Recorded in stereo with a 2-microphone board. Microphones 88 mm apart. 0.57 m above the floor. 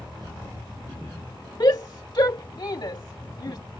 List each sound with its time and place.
1.6 s a shout: 55° left (ahead or behind)